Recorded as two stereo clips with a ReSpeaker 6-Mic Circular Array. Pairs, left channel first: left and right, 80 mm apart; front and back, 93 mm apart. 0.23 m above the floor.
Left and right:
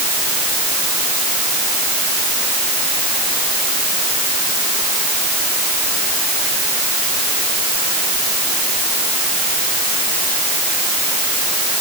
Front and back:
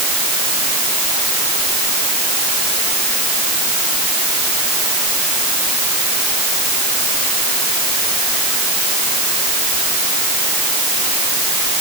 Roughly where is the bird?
I don't hear a bird.